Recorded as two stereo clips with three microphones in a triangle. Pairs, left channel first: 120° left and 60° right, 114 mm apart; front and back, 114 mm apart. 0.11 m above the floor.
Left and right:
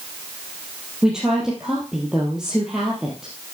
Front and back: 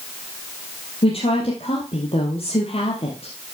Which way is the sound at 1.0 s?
25° left.